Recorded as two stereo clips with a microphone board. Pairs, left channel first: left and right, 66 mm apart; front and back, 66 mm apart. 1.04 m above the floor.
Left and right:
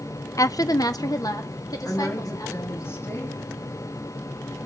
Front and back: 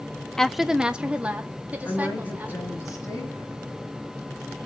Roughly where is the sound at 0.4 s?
Left.